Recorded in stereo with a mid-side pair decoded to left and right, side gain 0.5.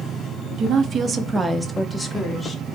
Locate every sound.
0.6 s a woman speaking: 60° right, 0.7 m; by 2.6 s 20° left, 1.0 m